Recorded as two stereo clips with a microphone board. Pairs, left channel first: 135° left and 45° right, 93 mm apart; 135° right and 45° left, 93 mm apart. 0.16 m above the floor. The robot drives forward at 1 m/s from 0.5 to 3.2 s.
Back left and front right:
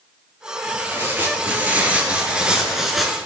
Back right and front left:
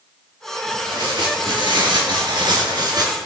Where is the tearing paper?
20° left, 4 m; by 3.2 s 45° left, 2 m.